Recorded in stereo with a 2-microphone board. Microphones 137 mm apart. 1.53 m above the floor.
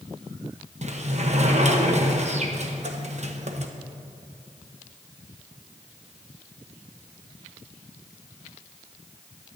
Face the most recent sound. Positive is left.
turn(degrees=-55)  # may be behind; listen again after turning